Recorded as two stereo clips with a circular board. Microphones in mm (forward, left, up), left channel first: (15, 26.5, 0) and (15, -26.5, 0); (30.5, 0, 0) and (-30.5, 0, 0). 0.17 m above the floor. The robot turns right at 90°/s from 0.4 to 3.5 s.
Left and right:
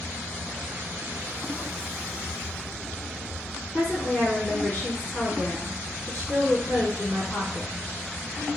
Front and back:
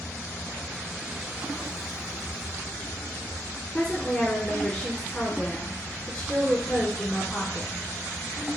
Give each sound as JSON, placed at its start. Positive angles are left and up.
{"t": 3.7, "sound": "a woman speaking", "azimuth_deg": 55, "distance_m": 1.5}